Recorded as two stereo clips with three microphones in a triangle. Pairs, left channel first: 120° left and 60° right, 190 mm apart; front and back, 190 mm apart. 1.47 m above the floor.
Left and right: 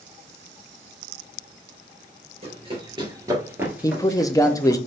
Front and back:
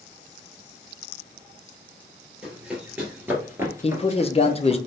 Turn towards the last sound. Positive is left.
turn(degrees=50)